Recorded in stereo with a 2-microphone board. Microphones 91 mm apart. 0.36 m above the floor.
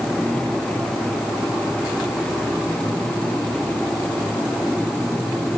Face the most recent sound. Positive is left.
No sound to turn to.